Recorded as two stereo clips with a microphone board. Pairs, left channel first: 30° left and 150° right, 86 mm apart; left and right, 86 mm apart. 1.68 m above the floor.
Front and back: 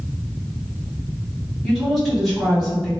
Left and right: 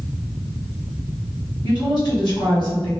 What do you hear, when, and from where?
1.6 s a woman speaking: 120° left, 1.5 m